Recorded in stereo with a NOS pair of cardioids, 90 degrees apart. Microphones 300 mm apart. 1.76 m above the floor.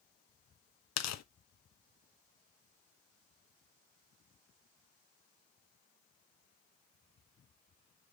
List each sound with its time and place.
1.0 s tearing paper: 65° left, 1.0 m